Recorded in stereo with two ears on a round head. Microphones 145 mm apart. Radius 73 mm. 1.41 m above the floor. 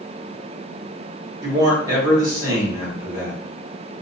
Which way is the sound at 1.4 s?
20° right (ahead or behind).